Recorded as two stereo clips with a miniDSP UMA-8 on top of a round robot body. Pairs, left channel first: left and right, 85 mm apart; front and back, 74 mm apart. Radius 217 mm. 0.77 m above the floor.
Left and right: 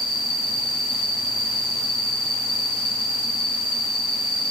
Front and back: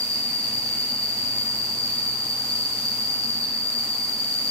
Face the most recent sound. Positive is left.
turn(degrees=75)